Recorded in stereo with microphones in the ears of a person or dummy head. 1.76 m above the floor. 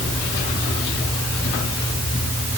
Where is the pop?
I don't hear a pop.